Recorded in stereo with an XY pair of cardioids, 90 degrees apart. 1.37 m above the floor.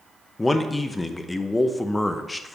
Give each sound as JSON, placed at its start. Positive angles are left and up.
{"t": 0.4, "sound": "a man speaking", "azimuth_deg": 20, "distance_m": 0.9}